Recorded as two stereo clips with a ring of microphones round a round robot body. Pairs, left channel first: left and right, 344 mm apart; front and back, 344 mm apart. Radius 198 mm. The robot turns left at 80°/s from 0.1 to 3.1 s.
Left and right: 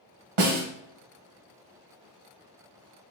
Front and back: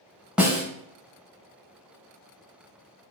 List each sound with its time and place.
0.4 s a snare drum: 95° right, 1.1 m; by 0.7 s 115° right, 1.1 m